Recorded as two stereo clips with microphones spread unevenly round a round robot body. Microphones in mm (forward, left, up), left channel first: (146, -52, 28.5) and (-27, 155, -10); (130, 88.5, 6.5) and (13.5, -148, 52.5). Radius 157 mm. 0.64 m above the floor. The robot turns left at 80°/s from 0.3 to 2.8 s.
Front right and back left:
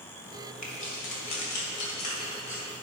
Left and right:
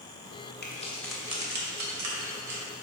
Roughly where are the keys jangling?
Ahead.